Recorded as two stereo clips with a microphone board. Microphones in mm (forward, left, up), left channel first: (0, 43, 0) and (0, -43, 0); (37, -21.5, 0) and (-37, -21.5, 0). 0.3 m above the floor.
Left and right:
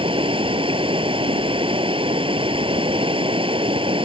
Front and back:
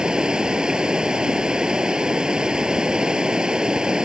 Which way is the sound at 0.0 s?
100° right.